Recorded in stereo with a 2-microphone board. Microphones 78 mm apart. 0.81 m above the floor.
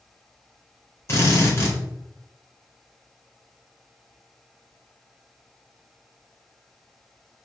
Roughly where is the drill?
Left.